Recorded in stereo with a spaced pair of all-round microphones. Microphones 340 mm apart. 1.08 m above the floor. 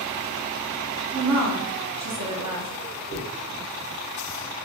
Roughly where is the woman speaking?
Right.